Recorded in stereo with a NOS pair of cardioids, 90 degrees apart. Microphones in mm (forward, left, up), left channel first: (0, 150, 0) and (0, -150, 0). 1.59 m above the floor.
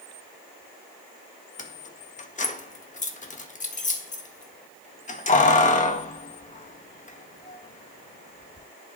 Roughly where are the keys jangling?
Ahead left.